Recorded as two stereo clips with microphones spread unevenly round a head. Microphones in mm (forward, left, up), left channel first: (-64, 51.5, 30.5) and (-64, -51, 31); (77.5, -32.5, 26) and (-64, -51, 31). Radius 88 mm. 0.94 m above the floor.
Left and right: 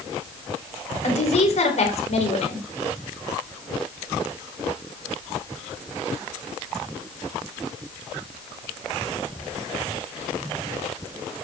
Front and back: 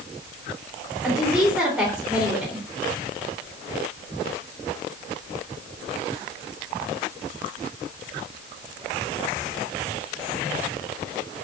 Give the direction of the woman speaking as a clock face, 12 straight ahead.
9 o'clock.